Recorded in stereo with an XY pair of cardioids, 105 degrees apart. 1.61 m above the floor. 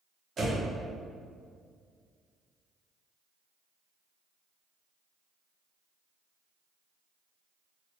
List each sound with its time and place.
0.4 s a door slam: 45° right, 1.1 m